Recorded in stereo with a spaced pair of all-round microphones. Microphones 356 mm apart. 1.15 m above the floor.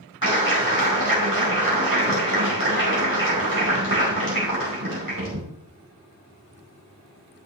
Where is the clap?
65° right (ahead or behind), 4 m.